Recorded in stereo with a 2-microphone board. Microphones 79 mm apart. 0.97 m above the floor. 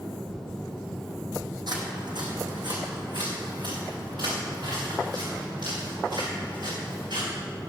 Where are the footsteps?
65° right (ahead or behind), 2.5 m; by 7.3 s 70° right (ahead or behind), 9 m.